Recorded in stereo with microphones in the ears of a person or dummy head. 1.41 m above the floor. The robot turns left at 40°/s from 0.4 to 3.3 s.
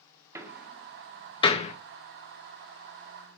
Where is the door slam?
10° right (ahead or behind), 1.1 m; by 1.7 s 40° left (ahead or behind), 1.1 m.